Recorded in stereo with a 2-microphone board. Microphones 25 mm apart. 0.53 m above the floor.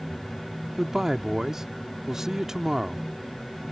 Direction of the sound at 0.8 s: 25° right (ahead or behind).